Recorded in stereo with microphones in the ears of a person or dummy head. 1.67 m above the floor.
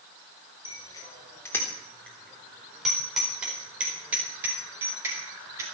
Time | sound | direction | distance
0.7 | a bicycle bell | 20° left (ahead or behind) | 3 m